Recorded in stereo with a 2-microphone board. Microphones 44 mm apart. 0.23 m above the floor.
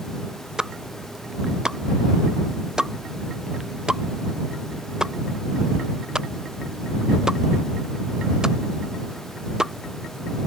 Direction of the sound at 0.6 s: 15° right (ahead or behind).